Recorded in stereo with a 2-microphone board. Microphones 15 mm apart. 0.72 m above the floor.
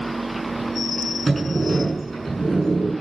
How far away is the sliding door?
About 6.5 m.